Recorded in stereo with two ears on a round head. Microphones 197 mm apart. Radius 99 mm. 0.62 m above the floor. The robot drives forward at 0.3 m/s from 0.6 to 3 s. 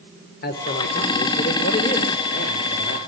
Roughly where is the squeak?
No squeak in this recording.